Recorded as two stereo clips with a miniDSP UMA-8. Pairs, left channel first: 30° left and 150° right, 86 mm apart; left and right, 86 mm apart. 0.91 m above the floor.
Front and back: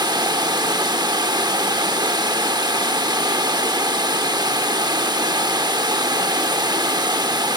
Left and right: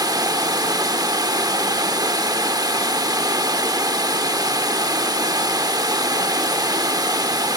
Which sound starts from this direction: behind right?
Running water, at 0.0 s.